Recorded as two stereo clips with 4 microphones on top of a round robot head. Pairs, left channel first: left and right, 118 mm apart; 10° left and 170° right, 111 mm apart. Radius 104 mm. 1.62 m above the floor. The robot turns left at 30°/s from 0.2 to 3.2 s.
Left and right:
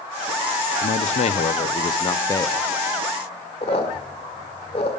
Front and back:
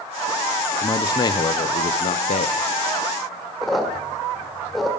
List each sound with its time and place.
0.8 s a man speaking: 75° left, 0.8 m; by 2.6 s 20° left, 0.8 m
3.6 s a squeak: 100° left, 1.5 m